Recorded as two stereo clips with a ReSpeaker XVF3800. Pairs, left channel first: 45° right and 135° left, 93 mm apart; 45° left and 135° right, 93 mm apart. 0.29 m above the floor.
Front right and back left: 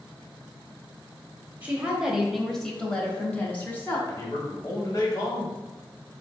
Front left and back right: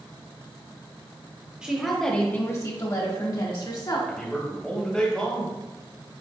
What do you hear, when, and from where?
1.6 s a woman speaking: 170° left, 0.9 m; by 4.0 s 20° left, 1.8 m
4.1 s a man speaking: 30° right, 1.4 m